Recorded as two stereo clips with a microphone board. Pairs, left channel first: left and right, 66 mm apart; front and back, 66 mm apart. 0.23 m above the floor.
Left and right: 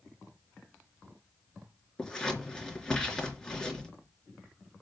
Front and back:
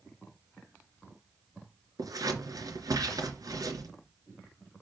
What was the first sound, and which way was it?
Scissors, 170° left.